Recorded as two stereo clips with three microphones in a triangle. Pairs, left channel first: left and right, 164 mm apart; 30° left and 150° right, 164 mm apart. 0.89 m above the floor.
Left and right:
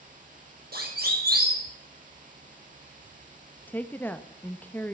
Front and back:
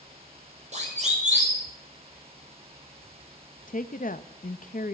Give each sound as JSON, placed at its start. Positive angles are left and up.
{"t": 0.7, "sound": "a siren", "azimuth_deg": -105, "distance_m": 6.5}
{"t": 3.7, "sound": "a woman speaking", "azimuth_deg": 15, "distance_m": 0.8}